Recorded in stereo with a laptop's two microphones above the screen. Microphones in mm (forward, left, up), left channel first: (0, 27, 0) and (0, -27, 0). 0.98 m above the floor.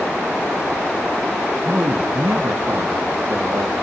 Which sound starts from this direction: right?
A man speaking, at 1.6 s.